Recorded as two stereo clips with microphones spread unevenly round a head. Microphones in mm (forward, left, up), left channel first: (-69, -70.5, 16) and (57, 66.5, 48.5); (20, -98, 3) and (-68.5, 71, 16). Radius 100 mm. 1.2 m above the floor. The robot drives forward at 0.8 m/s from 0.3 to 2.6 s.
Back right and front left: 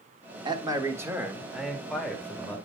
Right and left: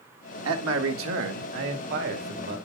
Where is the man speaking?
115° left, 1.7 m; by 2.6 s 145° left, 3 m.